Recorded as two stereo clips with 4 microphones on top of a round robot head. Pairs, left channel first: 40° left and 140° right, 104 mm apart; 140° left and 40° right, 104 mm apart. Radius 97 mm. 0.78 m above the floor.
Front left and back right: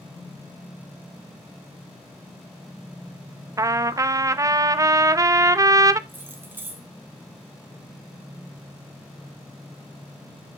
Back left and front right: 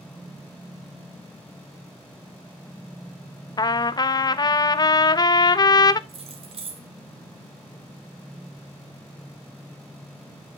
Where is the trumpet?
175° left, 0.7 m.